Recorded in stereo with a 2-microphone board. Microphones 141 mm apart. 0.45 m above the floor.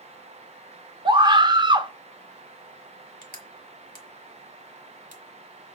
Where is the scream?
35° right (ahead or behind), 0.8 m.